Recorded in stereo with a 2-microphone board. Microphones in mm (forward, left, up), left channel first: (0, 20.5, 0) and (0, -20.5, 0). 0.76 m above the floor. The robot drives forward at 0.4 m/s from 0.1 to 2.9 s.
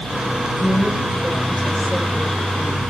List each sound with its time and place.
0.6 s a woman speaking: 10° left (ahead or behind), 4 m; by 2.8 s 15° left (ahead or behind), 3 m